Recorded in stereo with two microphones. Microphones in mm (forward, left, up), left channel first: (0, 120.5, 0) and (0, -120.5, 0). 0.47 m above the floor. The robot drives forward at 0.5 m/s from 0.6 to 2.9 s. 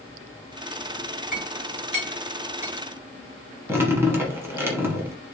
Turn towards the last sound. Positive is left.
turn(degrees=-10)  # may be behind; listen again after turning